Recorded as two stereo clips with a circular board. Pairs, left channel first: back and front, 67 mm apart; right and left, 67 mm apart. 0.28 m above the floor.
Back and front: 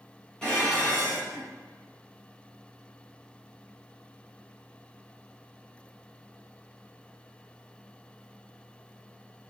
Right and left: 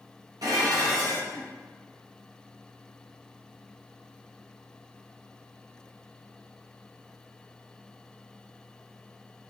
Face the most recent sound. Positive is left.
turn(degrees=100)